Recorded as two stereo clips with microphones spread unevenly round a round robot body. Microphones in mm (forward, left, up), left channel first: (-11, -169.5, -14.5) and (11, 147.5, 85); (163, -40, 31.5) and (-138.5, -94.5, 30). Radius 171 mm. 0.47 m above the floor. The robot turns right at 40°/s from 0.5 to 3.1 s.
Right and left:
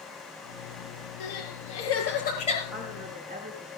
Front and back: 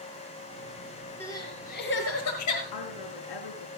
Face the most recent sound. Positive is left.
turn(degrees=10)